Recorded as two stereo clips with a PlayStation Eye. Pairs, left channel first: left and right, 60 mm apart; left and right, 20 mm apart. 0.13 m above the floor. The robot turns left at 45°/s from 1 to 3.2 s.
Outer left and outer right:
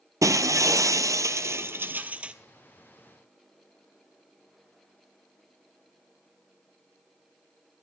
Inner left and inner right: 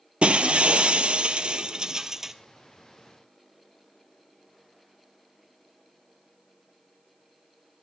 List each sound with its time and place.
0.2 s breaking glass: 100° right, 0.8 m; by 2.3 s 160° right, 0.8 m